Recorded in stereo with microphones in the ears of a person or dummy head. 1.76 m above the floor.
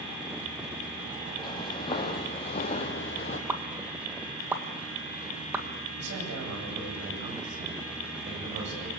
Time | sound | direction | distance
1.4 | footsteps | 25° left (ahead or behind) | 3.5 m
3.5 | a pop | 10° right (ahead or behind) | 2.0 m
6.0 | a man speaking | 65° right (ahead or behind) | 9.5 m